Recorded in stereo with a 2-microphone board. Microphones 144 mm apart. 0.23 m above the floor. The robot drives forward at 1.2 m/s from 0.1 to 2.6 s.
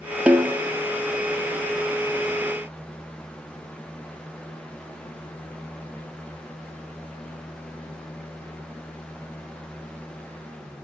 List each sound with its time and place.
0.3 s a snare drum: 10° right (ahead or behind), 1.2 m